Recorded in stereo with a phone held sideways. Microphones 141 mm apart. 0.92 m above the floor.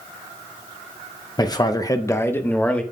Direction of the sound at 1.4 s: 25° left (ahead or behind).